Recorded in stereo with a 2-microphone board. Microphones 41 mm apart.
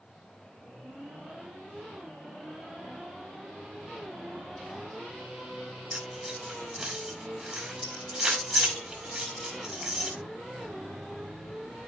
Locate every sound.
5.9 s keys jangling: 25° right (ahead or behind), 5.5 m